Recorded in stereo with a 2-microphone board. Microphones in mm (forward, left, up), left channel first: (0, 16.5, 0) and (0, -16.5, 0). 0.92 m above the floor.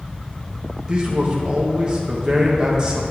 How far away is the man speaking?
About 0.9 m.